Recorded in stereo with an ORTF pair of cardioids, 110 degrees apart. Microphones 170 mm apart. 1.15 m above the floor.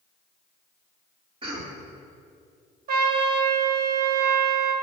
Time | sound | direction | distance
1.4 | a cough | 35° right | 2.5 m
2.9 | a trumpet | 65° right | 1.7 m